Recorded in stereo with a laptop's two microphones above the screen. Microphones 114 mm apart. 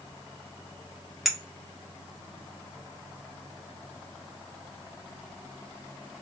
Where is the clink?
Centre (ahead or behind), 0.7 m.